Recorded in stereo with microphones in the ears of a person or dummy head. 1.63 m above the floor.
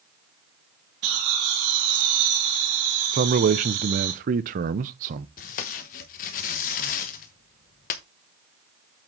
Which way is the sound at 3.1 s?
45° right (ahead or behind).